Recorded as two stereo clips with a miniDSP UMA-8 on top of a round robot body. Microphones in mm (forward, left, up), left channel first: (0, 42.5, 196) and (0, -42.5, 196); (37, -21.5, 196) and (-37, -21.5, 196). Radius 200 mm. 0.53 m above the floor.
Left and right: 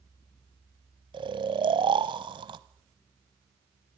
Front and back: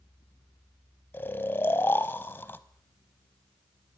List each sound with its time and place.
1.1 s snoring: 60° right, 0.9 m